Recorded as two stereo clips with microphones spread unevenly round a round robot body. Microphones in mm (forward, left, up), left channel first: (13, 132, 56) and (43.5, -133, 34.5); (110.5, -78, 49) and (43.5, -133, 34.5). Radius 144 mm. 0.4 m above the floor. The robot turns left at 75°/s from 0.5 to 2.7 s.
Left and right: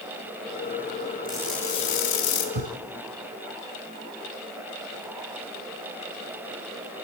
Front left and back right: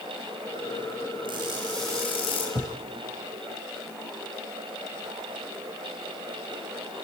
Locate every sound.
1.2 s crushing: 155° right, 3.5 m; by 2.5 s 115° left, 3.5 m
2.5 s a thud: 80° right, 1.5 m; by 2.8 s 95° right, 1.5 m